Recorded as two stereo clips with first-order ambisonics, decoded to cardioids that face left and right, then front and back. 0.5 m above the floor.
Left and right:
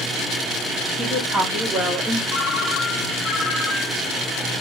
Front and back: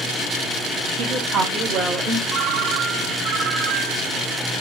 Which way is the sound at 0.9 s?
155° right.